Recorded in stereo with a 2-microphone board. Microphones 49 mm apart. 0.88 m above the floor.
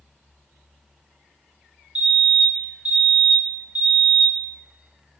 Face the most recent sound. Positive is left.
turn(degrees=-25)  # may be behind; listen again after turning